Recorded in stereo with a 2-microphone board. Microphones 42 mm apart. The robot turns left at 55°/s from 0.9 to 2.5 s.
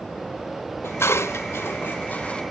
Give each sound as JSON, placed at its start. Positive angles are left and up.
{"t": 0.8, "sound": "dishes clattering", "side_deg": 70, "distance_m": 0.7}